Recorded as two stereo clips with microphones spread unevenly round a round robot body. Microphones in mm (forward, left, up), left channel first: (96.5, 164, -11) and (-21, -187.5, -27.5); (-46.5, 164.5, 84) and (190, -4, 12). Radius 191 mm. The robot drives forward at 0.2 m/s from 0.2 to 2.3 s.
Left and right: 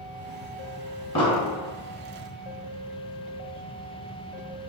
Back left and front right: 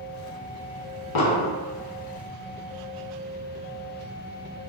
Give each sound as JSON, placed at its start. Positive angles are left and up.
{"t": 1.1, "sound": "an explosion", "azimuth_deg": 150, "distance_m": 0.6}